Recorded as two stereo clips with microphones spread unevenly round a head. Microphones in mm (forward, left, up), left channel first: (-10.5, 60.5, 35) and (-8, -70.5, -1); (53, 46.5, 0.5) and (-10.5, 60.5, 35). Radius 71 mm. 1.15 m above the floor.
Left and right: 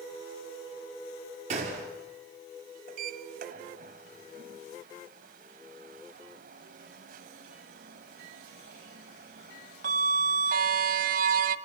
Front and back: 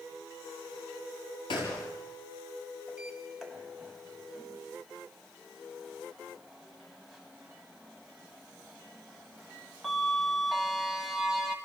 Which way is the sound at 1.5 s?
45° right.